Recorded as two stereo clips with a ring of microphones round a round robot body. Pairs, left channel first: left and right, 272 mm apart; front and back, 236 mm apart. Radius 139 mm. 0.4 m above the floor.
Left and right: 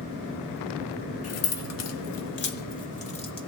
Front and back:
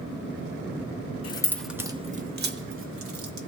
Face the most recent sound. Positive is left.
turn(degrees=160)